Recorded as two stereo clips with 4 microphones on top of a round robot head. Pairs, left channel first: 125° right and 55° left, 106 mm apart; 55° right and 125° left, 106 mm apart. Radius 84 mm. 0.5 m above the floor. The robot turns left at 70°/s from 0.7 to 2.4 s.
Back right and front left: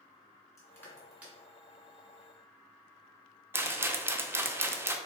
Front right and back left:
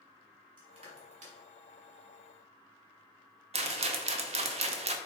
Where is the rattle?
125° left, 0.6 m.